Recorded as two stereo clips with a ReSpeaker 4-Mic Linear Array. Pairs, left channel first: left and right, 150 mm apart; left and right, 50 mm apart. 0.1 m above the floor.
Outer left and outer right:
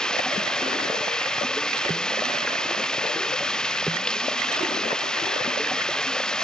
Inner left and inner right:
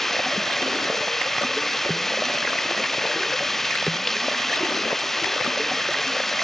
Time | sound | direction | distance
0.0 | running water | 5° left (ahead or behind) | ?